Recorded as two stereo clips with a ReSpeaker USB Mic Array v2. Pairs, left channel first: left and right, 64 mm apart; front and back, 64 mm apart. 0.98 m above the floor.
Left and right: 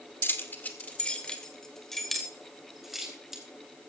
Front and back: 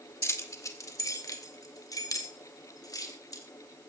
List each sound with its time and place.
0.2 s keys jangling: 40° left, 1.9 m; by 3.4 s 5° right, 4 m